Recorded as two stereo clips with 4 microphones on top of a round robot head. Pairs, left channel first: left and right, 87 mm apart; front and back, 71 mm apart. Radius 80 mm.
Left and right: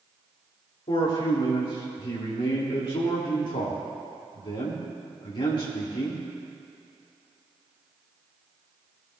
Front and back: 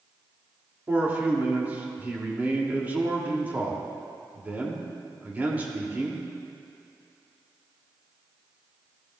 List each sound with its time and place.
0.9 s a man speaking: 115° left, 2.5 m